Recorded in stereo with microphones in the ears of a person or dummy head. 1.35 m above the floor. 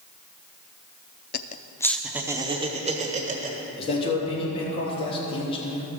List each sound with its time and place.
1.3 s laughter: 50° left (ahead or behind), 0.6 m; by 3.6 s 40° right (ahead or behind), 1.5 m
3.8 s a man speaking: 30° left (ahead or behind), 3 m